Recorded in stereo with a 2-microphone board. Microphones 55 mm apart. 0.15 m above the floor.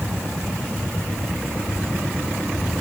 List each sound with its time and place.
Only background noise.